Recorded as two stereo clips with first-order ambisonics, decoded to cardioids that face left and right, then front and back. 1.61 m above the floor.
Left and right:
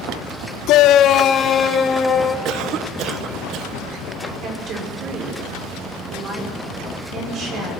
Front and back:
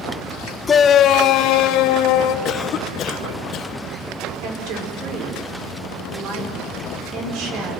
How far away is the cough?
About 1.1 m.